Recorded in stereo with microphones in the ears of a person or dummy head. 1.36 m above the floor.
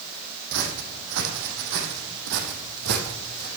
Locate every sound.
0.5 s footsteps: 65° right (ahead or behind), 4 m; by 3.5 s 50° right (ahead or behind), 3 m